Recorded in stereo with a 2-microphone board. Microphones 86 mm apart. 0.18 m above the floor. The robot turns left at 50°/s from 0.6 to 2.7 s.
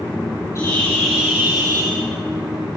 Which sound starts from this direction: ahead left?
A bird, at 0.6 s.